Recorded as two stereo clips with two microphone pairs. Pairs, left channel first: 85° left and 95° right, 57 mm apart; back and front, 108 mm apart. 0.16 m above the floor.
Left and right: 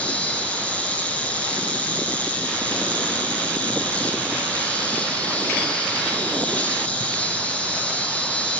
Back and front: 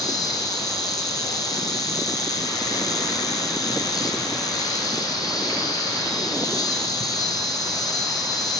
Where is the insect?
145° left, 1.2 m.